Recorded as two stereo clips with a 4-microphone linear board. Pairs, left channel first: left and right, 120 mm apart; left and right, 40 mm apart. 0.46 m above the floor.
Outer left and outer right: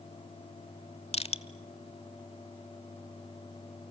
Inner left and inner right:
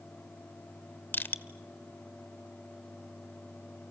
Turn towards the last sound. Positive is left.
turn(degrees=60)  # may be behind; listen again after turning